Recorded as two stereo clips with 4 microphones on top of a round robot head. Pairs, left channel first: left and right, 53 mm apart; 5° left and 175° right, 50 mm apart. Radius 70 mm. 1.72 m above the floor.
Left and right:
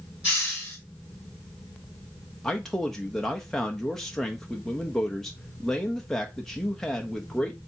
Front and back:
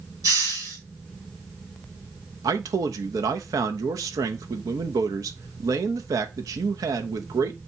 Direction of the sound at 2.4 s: 175° left.